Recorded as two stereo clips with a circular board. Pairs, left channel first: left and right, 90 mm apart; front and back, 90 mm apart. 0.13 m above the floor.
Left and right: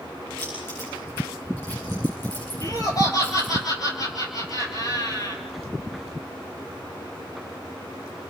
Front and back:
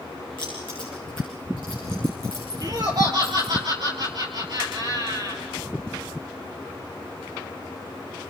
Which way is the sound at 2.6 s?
135° left.